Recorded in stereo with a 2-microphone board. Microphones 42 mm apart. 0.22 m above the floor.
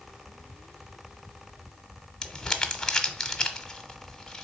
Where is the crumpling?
15° left (ahead or behind), 1.0 m.